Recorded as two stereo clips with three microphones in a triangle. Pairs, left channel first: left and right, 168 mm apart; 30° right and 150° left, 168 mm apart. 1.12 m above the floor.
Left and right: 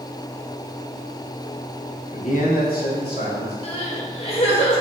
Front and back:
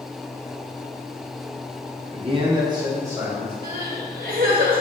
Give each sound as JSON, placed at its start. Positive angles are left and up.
{"t": 2.1, "sound": "a man speaking", "azimuth_deg": 125, "distance_m": 0.8}
{"t": 3.6, "sound": "crying", "azimuth_deg": 135, "distance_m": 1.0}